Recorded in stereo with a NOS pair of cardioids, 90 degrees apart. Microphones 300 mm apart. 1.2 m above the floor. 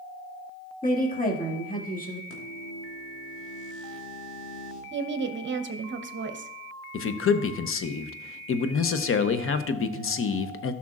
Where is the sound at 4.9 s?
40° right, 0.9 m.